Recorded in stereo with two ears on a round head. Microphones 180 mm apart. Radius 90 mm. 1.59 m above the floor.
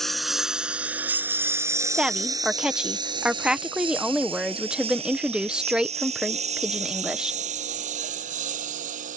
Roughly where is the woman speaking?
Centre.